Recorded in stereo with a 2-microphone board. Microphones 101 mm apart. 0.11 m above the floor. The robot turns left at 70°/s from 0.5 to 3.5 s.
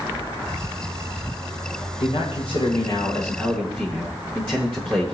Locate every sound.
2.0 s a man speaking: 115° left, 9.5 m; by 5.2 s 10° left, 9.5 m